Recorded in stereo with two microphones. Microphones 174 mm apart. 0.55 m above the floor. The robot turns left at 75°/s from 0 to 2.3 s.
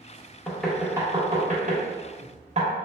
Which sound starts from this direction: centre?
Knocking, at 0.5 s.